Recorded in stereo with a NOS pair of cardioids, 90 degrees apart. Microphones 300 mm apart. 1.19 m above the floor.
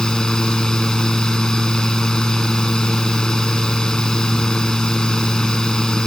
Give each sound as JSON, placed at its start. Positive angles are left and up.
{"t": 0.0, "sound": "a fan", "azimuth_deg": 0}